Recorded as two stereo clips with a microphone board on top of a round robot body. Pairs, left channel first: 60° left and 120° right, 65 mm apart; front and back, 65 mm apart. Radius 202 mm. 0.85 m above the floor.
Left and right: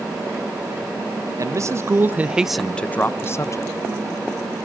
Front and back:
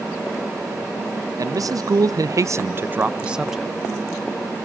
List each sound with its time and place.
1.4 s a man speaking: 155° right, 1.1 m; by 3.8 s 95° left, 1.2 m